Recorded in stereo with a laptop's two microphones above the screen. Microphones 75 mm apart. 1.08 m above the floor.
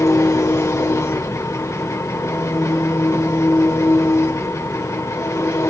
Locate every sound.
0.0 s an engine running: 45° left (ahead or behind), 1.5 m